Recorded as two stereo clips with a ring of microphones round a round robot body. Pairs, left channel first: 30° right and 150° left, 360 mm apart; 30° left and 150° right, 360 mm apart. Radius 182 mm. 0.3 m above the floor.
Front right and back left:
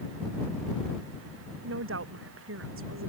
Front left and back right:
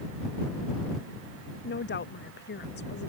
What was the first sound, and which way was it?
A woman speaking, 95° left.